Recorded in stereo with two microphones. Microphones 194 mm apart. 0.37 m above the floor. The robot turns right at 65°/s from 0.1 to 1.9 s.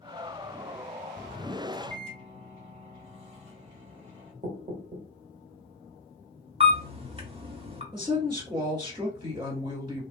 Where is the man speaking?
25° right (ahead or behind), 1.7 m.